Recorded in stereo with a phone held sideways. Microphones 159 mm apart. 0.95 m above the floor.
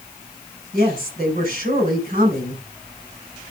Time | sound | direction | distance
0.7 | a woman speaking | 55° right (ahead or behind) | 5 m